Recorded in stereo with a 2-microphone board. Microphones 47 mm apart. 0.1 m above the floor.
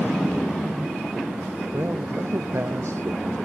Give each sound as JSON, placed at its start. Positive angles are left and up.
{"t": 1.7, "sound": "a man speaking", "side_deg": -60}